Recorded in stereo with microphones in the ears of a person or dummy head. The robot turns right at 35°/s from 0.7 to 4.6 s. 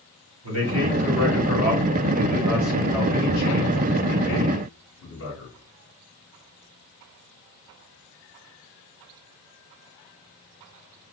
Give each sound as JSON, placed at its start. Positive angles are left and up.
{"t": 0.4, "sound": "a man speaking", "azimuth_deg": -75, "distance_m": 2.5}